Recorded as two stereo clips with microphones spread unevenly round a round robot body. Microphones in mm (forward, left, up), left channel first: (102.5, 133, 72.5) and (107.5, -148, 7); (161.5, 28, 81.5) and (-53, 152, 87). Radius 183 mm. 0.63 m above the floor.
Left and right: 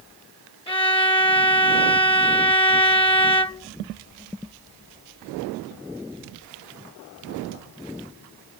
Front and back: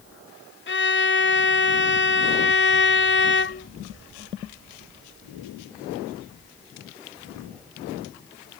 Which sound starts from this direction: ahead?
A violin, at 0.7 s.